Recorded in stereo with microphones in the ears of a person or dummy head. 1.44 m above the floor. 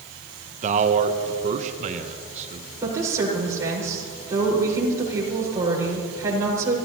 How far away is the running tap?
I don't hear a running tap.